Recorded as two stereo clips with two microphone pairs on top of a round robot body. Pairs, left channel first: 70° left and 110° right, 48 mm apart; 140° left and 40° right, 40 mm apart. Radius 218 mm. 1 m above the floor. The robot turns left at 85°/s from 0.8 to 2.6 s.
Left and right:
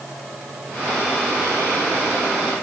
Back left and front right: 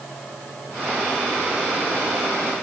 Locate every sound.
Only background noise.